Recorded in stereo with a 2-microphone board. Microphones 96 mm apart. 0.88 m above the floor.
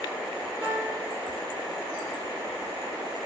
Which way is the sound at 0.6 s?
80° right.